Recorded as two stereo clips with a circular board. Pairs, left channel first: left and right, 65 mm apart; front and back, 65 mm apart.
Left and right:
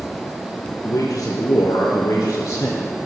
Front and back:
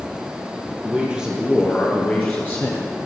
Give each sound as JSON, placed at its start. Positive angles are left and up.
{"t": 0.8, "sound": "a man speaking", "azimuth_deg": 120, "distance_m": 2.5}